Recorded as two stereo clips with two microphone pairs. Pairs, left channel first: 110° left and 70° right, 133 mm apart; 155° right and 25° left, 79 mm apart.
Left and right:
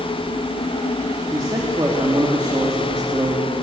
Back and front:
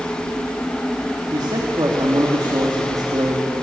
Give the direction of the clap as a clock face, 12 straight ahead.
No clap in this recording.